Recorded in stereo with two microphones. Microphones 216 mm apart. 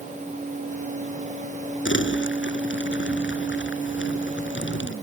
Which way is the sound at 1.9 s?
60° left (ahead or behind).